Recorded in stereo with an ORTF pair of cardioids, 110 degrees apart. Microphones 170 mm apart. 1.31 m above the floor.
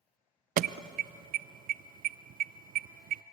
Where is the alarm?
55° right, 0.7 m.